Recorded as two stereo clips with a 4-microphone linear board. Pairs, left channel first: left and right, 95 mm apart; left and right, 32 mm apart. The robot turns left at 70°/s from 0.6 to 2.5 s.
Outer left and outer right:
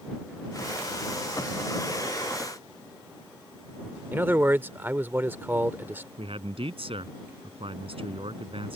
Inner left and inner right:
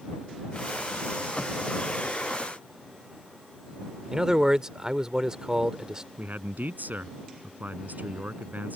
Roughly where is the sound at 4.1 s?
Right.